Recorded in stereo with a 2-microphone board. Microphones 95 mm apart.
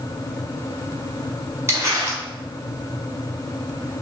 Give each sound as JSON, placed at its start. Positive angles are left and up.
{"t": 1.7, "sound": "crumpling", "side_deg": -30, "distance_m": 1.2}